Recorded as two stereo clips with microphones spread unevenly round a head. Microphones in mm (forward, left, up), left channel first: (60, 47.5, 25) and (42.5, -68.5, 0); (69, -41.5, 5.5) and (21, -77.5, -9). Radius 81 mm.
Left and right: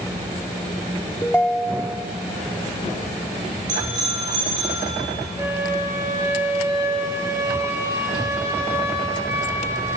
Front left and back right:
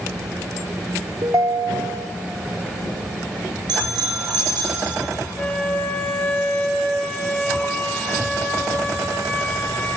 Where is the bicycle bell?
165° right, 6.5 m.